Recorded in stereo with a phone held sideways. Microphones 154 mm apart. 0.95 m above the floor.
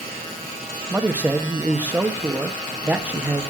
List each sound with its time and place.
0.9 s a man speaking: 10° right (ahead or behind), 1.2 m